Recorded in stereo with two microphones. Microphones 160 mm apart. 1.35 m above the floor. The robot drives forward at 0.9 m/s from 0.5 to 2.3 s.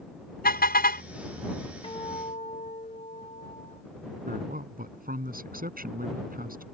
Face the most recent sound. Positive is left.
turn(degrees=-65)  # may be behind; listen again after turning